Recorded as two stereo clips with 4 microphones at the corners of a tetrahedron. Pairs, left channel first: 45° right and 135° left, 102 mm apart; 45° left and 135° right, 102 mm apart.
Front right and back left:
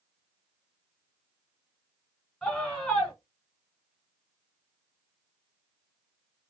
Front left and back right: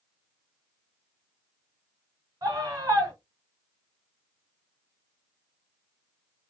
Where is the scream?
125° right, 1.8 m.